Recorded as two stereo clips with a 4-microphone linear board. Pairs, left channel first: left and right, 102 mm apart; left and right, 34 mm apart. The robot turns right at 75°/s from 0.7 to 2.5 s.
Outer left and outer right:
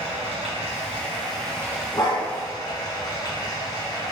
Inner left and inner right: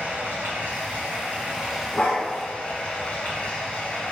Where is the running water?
95° right, 1.3 m; by 4.1 s 40° left, 1.3 m.